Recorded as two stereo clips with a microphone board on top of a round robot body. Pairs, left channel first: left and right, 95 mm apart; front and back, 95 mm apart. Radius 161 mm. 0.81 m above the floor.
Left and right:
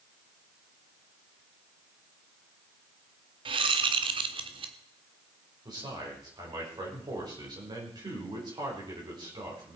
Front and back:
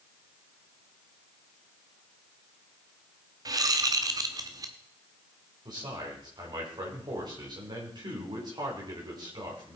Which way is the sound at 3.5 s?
125° right.